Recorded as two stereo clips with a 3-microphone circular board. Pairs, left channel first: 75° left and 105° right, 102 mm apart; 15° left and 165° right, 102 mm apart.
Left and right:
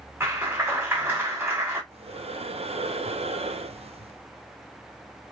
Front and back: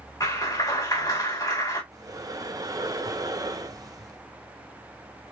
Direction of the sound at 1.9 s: 115° right.